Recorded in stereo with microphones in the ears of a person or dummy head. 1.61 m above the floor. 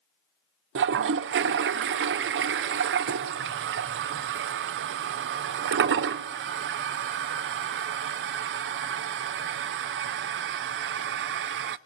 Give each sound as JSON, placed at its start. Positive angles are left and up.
{"t": 0.8, "sound": "a toilet flushing", "side_deg": -55, "distance_m": 0.6}